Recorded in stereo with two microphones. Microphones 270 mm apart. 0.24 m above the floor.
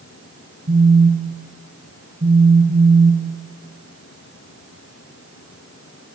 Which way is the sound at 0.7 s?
30° right (ahead or behind).